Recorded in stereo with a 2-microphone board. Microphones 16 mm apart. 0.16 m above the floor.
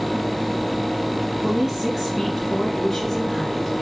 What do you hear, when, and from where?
1.4 s a woman speaking: 25° right (ahead or behind), 1.6 m; by 3.8 s 35° left (ahead or behind), 1.7 m